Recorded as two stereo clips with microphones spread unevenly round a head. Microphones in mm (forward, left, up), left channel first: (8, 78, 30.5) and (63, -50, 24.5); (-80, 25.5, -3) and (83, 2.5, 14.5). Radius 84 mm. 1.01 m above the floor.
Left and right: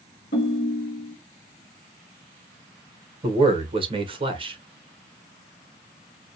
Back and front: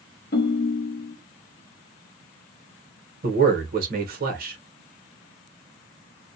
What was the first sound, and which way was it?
A ringtone, 140° left.